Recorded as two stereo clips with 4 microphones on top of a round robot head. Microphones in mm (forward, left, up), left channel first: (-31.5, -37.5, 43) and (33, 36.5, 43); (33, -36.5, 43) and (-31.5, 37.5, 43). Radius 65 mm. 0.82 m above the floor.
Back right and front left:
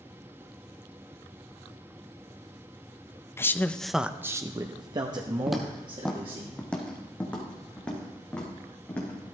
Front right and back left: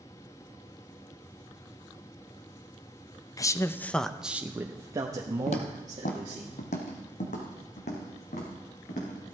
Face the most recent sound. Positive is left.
turn(degrees=-55)